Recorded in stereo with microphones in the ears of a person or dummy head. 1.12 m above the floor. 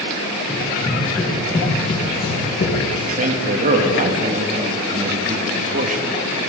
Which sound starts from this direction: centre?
Running footsteps, at 0.5 s.